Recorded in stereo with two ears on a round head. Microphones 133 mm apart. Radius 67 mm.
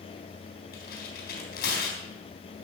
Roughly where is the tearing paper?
Left.